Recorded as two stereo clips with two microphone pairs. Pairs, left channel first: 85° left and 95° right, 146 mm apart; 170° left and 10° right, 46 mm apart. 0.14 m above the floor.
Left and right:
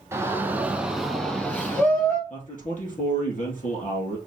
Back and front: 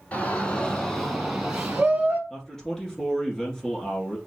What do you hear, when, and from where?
0.1 s a shout: 160° right, 1.3 m; by 2.2 s 35° left, 1.3 m
2.3 s a man speaking: 90° left, 3.5 m